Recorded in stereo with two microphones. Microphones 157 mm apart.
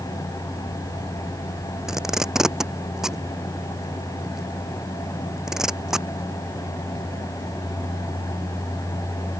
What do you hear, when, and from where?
1.9 s tape being pulled: 5° right (ahead or behind)